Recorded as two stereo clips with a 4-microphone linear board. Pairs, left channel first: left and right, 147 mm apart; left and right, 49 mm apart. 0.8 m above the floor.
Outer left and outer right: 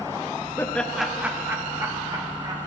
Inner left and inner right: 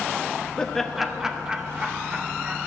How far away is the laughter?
About 0.6 m.